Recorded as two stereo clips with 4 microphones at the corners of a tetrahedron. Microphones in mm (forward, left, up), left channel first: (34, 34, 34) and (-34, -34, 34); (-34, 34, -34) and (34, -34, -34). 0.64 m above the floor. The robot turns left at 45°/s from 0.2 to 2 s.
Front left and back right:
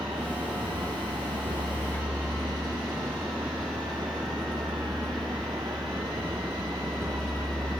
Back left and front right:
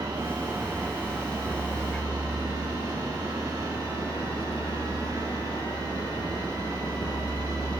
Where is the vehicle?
95° right; by 7.8 s 175° right.